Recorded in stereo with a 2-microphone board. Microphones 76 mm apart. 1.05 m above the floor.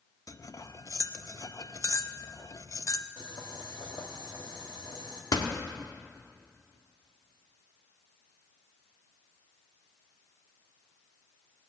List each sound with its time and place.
0.3 s cutlery clinking: 50° left (ahead or behind), 0.6 m
3.2 s boiling: 70° left (ahead or behind), 2 m
5.3 s a door slam: 70° left (ahead or behind), 1.5 m